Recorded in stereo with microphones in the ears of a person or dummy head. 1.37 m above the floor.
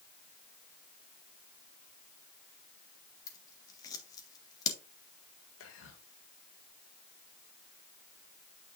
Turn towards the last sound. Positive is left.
turn(degrees=80)